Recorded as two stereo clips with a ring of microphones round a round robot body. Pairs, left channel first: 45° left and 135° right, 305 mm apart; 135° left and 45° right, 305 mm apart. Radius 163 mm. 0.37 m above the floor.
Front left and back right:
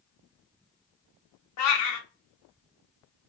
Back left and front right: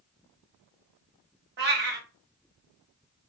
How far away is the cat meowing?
About 0.9 m.